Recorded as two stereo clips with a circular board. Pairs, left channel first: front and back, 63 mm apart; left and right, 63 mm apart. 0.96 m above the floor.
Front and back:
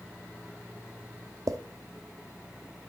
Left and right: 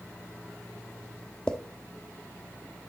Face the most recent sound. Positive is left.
turn(degrees=165)